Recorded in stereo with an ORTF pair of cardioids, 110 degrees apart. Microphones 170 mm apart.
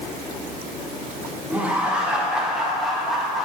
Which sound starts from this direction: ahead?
Laughter, at 1.5 s.